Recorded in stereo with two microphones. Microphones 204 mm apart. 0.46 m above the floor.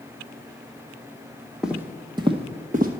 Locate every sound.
1.6 s footsteps: 5° right (ahead or behind), 1.0 m; by 2.9 s 45° right (ahead or behind), 1.0 m